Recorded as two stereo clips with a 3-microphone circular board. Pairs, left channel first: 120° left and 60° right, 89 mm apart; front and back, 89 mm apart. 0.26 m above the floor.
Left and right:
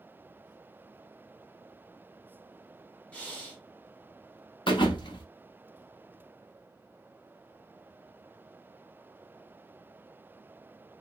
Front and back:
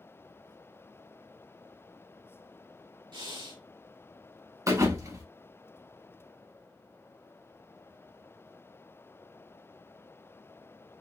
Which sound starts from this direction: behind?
Breathing, at 3.1 s.